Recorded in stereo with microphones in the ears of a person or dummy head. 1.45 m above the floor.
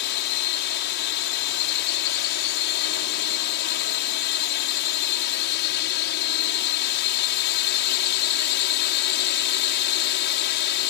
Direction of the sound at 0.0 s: 60° left (ahead or behind).